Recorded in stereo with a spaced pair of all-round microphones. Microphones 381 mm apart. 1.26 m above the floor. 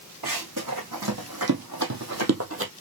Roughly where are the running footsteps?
Right.